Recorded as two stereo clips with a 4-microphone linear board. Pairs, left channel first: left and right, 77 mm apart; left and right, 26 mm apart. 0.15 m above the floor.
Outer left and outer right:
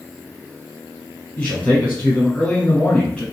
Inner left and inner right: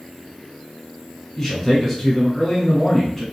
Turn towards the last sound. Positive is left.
turn(degrees=15)  # may be behind; listen again after turning